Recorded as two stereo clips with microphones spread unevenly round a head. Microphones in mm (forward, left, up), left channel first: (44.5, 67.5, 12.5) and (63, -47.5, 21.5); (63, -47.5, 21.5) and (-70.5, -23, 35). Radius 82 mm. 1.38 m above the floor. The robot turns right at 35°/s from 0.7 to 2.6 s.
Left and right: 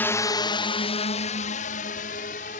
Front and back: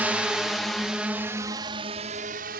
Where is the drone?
95° left; by 2.6 s 140° left.